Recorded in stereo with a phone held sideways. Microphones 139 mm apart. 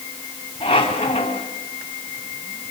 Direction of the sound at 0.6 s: 40° left (ahead or behind).